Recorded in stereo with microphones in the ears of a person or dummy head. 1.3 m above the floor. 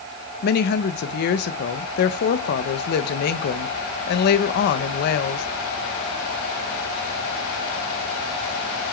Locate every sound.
0.4 s a woman speaking: 55° left (ahead or behind), 1.2 m